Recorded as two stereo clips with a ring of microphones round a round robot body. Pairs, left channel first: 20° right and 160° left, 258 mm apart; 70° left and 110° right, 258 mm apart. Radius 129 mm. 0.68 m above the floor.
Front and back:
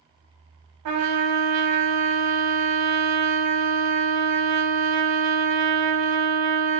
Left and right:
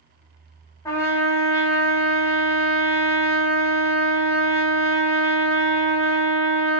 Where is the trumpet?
145° left, 0.6 m.